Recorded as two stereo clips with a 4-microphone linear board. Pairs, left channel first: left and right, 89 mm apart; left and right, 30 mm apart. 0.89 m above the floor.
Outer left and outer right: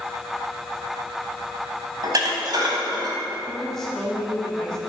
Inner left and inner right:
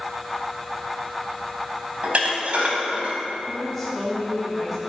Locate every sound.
2.0 s dishes clattering: 50° right (ahead or behind), 3.5 m
3.5 s a woman speaking: 5° left (ahead or behind), 6.5 m